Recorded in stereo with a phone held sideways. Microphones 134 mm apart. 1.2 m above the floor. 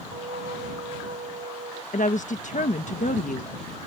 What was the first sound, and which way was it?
A flute, 80° right.